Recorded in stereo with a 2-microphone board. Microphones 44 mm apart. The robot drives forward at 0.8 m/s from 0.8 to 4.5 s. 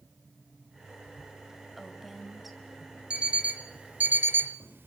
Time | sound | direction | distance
1.8 | a woman speaking | centre (ahead or behind) | 2.5 m
3.1 | an alarm clock | 25° right (ahead or behind) | 1.5 m